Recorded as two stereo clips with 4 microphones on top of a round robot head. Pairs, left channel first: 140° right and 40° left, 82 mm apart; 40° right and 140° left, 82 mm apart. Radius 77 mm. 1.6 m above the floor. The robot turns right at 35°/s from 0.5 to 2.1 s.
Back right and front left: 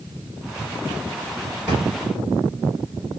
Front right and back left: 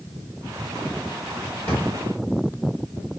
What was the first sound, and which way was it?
A drawer, 5° left.